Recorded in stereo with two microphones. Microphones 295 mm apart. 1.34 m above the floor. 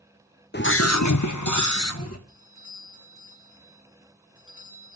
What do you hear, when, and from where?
0.5 s a scream: 35° left (ahead or behind), 1.2 m; by 2.2 s 50° left (ahead or behind), 1.9 m
2.3 s a doorbell: 45° left (ahead or behind), 6.5 m